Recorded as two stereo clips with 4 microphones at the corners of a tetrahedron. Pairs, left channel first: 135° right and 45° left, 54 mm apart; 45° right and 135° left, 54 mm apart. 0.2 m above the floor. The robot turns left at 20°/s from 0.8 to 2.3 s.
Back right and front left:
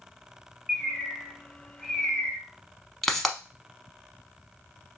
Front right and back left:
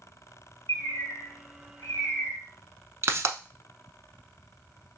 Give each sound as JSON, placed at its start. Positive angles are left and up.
{"t": 0.7, "sound": "a bird", "azimuth_deg": -40, "distance_m": 2.0}
{"t": 3.0, "sound": "a pop", "azimuth_deg": 140, "distance_m": 0.7}